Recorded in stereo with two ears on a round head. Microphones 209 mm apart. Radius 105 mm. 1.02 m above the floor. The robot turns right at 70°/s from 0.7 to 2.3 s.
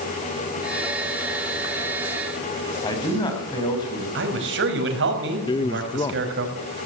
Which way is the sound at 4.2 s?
50° right (ahead or behind).